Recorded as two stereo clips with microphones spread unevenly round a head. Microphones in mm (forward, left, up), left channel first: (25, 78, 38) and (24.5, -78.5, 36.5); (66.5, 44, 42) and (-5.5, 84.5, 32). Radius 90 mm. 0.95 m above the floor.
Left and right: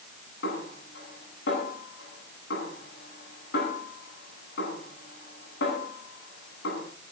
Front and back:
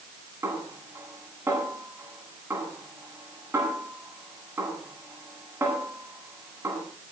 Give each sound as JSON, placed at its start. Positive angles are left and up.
{"t": 0.4, "sound": "a snare drum", "azimuth_deg": 90, "distance_m": 10.0}